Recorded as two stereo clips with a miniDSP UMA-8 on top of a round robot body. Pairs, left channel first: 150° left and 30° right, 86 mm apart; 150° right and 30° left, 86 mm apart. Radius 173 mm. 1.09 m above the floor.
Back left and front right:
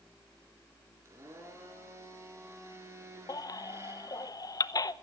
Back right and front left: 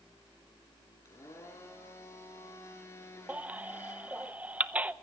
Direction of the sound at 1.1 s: 90° right.